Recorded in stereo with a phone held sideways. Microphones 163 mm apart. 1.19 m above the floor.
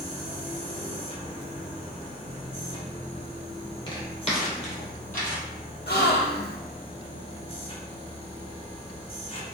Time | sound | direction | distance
0.0 | a machine running | 35° left (ahead or behind) | 1.0 m
3.9 | footsteps | 30° left (ahead or behind) | 1.8 m
5.9 | a gasp | 80° left | 0.7 m